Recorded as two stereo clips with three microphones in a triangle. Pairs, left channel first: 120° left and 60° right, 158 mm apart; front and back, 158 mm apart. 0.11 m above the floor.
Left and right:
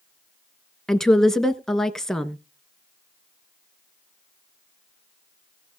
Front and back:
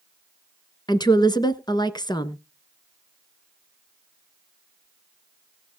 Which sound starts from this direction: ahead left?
A woman speaking, at 0.9 s.